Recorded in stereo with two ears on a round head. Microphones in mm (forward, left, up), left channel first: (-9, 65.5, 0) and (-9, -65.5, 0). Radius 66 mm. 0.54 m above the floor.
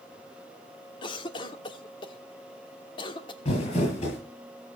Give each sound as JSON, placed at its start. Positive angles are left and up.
{"t": 1.0, "sound": "a cough", "side_deg": 35, "distance_m": 1.4}
{"t": 3.5, "sound": "crumpling", "side_deg": 50, "distance_m": 9.0}